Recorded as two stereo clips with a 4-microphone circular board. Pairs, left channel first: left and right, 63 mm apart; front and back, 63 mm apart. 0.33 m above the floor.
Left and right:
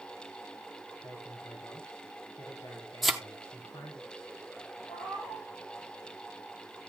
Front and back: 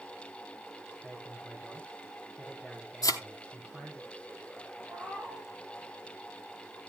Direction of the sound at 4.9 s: 105° left.